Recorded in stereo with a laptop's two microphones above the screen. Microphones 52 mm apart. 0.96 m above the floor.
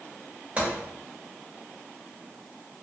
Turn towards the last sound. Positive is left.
turn(degrees=-25)  # may be behind; listen again after turning